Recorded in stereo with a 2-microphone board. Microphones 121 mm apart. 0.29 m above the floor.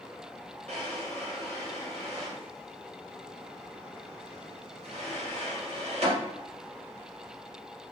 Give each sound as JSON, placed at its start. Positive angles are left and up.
{"t": 0.7, "sound": "a drawer", "side_deg": -60, "distance_m": 1.6}